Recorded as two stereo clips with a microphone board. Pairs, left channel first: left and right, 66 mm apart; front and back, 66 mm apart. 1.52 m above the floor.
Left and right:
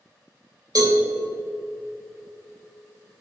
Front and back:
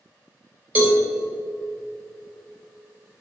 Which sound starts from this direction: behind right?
A cowbell, at 0.8 s.